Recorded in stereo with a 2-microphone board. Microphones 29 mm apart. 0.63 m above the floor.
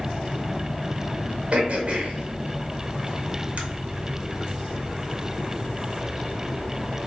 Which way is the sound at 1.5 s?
45° right (ahead or behind).